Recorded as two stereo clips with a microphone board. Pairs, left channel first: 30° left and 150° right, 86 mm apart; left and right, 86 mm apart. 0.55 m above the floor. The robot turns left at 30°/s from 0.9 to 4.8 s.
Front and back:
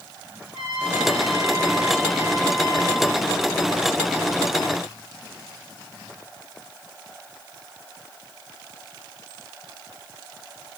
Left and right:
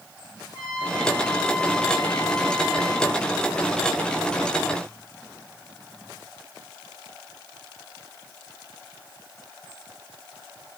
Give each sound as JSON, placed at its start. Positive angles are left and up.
{"t": 0.5, "sound": "a trumpet", "azimuth_deg": 125, "distance_m": 5.0}